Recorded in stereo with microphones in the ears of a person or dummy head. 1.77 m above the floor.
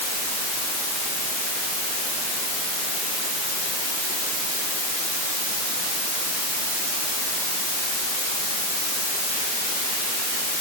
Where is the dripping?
No dripping in this recording.